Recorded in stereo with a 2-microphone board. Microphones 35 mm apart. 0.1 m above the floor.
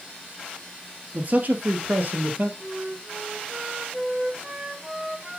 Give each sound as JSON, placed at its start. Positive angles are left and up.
{"t": 1.1, "sound": "a man speaking", "side_deg": -50, "distance_m": 1.7}
{"t": 2.6, "sound": "a flute", "side_deg": -20, "distance_m": 1.6}